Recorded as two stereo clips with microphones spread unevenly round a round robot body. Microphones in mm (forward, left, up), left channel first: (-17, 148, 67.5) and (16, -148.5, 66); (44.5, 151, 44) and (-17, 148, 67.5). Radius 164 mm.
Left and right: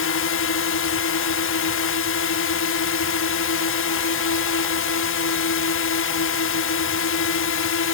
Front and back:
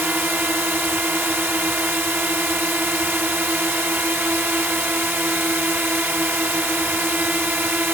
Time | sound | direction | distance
0.0 | a drone | 120° left | ?